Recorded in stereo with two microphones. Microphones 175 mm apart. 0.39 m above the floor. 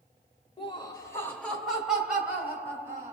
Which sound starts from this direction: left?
Laughter, at 0.6 s.